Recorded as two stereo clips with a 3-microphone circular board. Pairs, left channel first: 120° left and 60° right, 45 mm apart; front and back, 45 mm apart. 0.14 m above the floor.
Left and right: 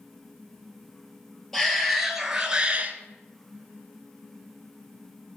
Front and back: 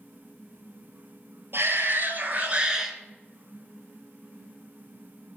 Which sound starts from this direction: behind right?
A shout, at 1.5 s.